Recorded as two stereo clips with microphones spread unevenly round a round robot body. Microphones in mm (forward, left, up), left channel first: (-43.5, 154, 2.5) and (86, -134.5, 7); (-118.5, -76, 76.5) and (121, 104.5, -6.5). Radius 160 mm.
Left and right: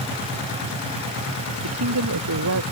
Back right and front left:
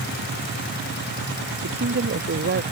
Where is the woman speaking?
20° right.